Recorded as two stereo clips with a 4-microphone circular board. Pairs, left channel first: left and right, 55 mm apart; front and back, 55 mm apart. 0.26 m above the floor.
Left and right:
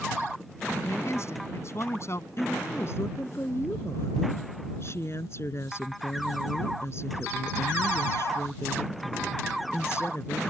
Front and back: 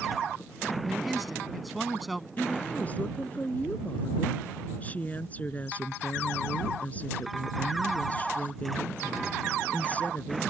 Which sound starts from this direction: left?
A man speaking, at 0.8 s.